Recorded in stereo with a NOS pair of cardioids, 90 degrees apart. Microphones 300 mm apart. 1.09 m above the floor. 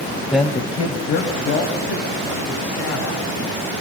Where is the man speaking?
5° left, 0.7 m; by 3.2 s 70° left, 3.5 m.